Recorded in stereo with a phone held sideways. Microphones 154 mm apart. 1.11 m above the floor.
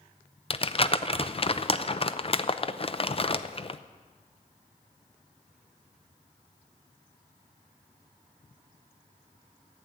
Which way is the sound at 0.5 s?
40° left (ahead or behind).